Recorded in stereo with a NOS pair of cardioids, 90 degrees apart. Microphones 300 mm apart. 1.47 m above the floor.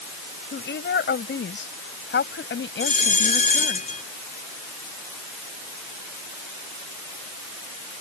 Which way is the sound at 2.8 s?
25° left.